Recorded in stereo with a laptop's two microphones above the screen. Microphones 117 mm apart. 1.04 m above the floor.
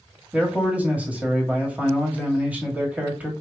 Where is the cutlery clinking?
No cutlery clinking in this recording.